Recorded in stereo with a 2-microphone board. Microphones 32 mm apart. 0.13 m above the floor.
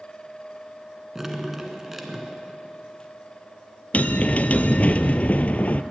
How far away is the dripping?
About 1.5 m.